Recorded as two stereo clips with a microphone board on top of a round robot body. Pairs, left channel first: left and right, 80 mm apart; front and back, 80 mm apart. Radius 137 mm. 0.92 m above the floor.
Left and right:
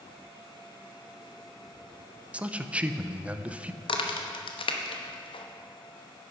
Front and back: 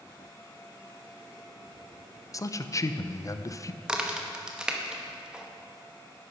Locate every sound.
2.3 s a man speaking: 20° right, 0.7 m
3.8 s a crack: 100° left, 1.0 m